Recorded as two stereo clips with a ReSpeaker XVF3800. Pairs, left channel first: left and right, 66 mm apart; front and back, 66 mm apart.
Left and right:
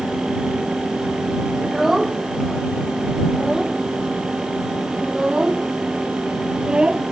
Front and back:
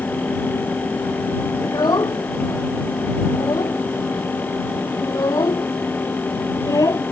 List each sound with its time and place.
1.6 s a child speaking: 5° right; by 7.0 s 15° right